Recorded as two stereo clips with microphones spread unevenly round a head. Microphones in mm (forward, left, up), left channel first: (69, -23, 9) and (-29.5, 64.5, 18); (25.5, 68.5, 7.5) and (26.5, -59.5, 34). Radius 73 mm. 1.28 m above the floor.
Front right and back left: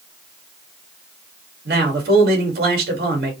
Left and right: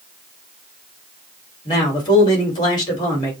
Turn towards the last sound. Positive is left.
turn(degrees=155)